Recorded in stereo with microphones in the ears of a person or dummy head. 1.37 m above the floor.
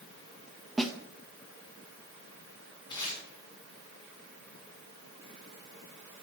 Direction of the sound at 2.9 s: 25° left (ahead or behind).